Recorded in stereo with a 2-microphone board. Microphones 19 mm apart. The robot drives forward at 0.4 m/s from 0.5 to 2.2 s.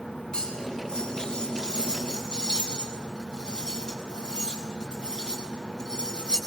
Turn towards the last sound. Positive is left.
turn(degrees=40)  # may be behind; listen again after turning